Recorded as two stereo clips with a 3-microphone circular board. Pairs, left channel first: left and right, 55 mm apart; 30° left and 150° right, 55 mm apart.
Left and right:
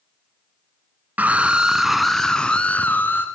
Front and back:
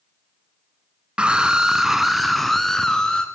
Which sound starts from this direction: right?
A scream, at 1.2 s.